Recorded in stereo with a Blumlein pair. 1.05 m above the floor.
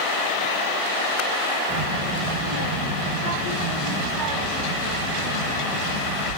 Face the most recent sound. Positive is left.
turn(degrees=-40)